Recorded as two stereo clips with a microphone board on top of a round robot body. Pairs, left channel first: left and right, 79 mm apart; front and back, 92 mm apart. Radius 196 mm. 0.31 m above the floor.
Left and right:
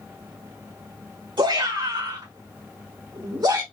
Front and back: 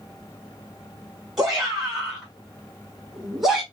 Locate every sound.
1.4 s a shout: 95° right, 3.5 m